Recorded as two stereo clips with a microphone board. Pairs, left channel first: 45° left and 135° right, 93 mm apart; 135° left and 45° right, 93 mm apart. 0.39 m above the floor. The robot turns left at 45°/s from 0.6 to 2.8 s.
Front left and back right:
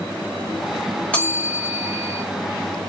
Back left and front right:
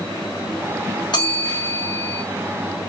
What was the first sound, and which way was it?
A bell, 115° left.